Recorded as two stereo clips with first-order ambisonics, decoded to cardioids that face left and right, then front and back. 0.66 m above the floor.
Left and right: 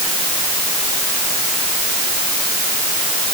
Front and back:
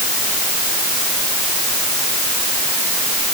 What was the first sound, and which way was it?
Only background noise.